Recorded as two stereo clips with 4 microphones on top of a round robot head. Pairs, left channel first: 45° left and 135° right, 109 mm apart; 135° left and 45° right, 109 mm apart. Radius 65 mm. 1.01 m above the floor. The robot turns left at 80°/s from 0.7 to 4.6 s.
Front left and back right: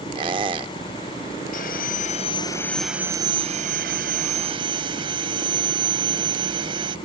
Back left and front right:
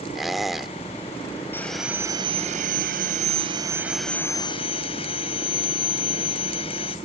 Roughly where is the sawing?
Ahead left.